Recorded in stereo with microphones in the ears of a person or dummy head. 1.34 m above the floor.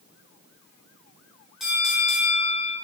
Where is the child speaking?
I don't hear a child speaking.